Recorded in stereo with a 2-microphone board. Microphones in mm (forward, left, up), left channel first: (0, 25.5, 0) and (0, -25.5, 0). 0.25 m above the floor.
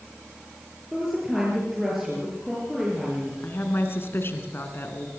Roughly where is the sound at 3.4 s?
Left.